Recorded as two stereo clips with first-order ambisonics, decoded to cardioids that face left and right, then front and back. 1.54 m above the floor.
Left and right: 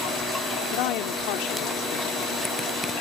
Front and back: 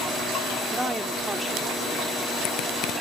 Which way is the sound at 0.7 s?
100° left.